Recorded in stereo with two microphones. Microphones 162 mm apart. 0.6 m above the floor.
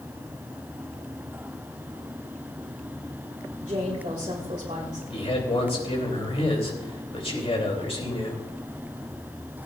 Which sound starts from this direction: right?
A woman speaking, at 3.6 s.